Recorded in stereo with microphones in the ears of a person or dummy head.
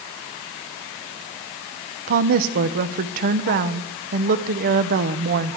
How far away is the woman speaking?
About 0.7 m.